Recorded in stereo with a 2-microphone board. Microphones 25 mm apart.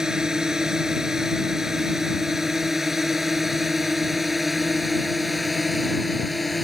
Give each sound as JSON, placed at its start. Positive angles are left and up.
{"t": 0.0, "sound": "a drone", "side_deg": -25}